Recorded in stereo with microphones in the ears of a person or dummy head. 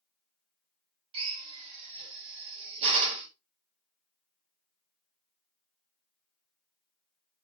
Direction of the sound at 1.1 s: 30° right (ahead or behind).